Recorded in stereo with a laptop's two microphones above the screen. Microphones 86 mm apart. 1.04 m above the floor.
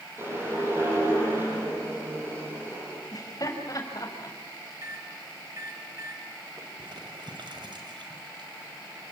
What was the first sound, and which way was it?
A whoosh, 30° right (ahead or behind).